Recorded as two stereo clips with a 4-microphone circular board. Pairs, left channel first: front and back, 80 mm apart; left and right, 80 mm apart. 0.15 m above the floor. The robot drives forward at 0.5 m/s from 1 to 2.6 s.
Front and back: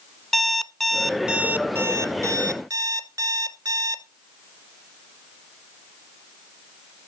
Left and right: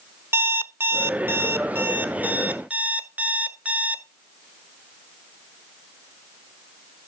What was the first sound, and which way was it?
An alarm clock, 85° right.